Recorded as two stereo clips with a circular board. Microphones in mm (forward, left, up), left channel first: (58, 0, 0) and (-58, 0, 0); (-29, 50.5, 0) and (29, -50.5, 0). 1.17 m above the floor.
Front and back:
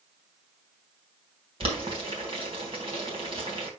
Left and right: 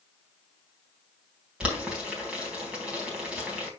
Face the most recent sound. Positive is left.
turn(degrees=-140)